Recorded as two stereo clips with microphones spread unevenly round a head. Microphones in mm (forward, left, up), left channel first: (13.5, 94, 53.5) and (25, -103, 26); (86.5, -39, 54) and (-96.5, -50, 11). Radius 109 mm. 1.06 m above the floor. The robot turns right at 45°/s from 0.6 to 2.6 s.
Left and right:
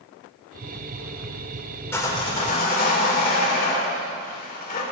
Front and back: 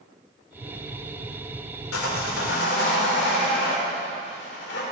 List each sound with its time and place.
1.9 s sawing: 15° left, 3.5 m; by 4.8 s 45° left, 3.5 m